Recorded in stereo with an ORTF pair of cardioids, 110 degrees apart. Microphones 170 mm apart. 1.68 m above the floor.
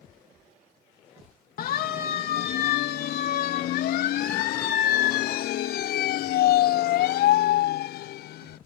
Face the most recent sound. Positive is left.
turn(degrees=70)